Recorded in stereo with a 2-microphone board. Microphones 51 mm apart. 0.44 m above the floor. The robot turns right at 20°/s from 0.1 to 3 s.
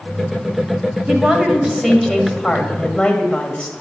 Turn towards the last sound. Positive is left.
turn(degrees=20)